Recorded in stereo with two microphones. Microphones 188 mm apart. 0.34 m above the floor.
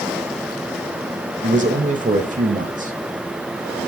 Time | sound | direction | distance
1.4 | a man speaking | 45° right (ahead or behind) | 1.1 m